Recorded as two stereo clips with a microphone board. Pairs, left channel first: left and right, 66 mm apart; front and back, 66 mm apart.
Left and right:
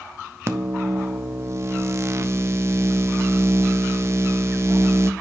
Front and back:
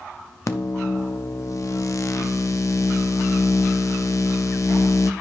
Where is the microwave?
40° right, 0.6 m.